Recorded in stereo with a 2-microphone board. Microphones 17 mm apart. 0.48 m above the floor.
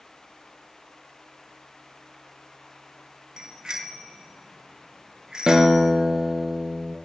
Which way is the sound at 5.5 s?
60° right (ahead or behind).